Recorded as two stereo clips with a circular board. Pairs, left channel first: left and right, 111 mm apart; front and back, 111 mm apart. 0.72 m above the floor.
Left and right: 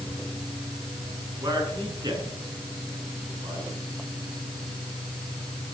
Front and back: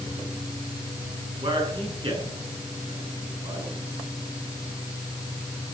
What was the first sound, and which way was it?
A man speaking, 145° right.